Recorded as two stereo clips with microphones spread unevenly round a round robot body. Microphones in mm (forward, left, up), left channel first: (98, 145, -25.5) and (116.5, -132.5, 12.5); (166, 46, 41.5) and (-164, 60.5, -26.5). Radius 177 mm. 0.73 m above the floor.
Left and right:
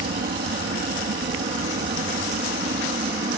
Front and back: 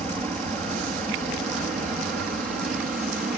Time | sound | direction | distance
0.0 | an aircraft | 105° right | ?